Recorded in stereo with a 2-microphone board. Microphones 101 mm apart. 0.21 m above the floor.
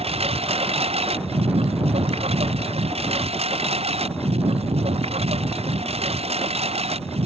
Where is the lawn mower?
80° right; by 7.3 s 85° right.